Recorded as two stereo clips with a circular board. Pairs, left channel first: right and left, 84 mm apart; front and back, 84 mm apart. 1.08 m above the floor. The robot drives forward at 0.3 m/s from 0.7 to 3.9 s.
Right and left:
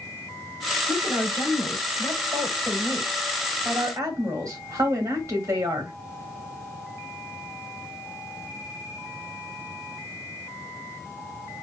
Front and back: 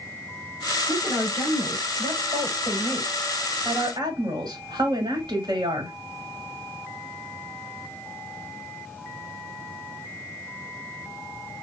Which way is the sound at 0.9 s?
135° left.